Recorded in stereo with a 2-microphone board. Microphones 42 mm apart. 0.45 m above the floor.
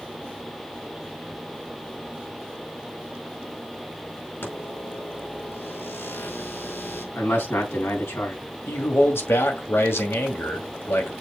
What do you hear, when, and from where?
4.4 s a microwave: 60° left (ahead or behind), 4.5 m
7.2 s a man speaking: 70° left (ahead or behind), 3.5 m
8.7 s a man speaking: 65° left (ahead or behind), 2.5 m